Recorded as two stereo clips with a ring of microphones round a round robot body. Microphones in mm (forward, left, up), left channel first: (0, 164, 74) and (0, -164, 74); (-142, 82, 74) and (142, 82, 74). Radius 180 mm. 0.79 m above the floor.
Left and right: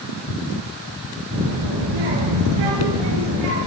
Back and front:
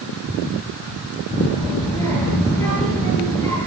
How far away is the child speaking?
About 10 m.